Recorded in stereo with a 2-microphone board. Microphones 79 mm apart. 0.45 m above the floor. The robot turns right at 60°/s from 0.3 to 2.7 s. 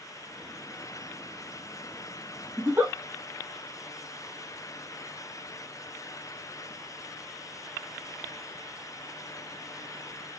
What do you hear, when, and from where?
2.6 s a giggle: 35° right (ahead or behind), 0.9 m; by 2.9 s 25° right (ahead or behind), 0.9 m